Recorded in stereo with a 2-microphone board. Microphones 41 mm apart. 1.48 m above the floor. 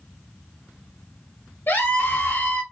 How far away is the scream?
About 1.7 m.